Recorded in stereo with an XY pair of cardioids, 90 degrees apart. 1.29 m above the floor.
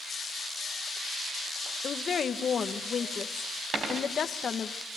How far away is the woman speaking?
About 1.7 m.